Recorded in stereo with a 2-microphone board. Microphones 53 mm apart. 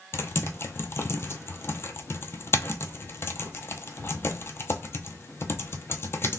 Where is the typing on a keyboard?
50° left (ahead or behind), 0.6 m.